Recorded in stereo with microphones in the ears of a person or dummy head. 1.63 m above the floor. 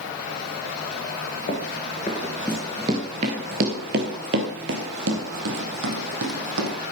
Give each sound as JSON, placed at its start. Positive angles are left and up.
{"t": 1.5, "sound": "running footsteps", "side_deg": 30, "distance_m": 1.8}